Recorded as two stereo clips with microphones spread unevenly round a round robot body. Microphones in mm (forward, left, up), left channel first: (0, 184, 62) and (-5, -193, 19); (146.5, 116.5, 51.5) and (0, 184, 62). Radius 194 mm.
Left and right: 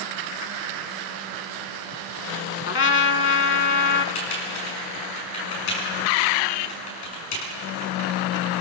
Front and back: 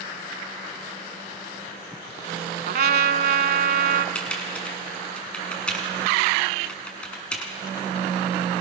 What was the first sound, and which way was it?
A trumpet, 145° left.